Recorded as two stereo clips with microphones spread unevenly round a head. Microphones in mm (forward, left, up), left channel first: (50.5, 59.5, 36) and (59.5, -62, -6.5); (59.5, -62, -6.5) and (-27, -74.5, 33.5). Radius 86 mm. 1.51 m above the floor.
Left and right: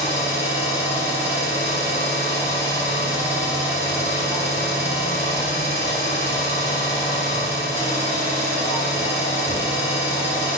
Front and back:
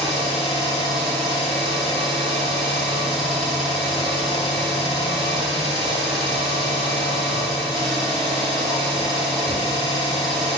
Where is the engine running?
175° right, 1.3 m.